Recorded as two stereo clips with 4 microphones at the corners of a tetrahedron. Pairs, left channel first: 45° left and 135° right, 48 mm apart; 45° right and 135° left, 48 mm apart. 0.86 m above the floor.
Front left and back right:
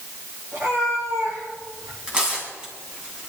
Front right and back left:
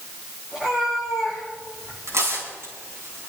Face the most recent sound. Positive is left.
turn(degrees=155)